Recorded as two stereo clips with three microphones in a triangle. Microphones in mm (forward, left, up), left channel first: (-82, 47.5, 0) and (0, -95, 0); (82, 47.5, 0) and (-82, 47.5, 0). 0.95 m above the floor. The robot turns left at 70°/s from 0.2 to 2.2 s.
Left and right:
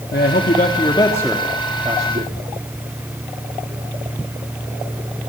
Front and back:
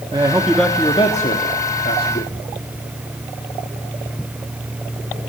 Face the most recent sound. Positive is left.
turn(degrees=-25)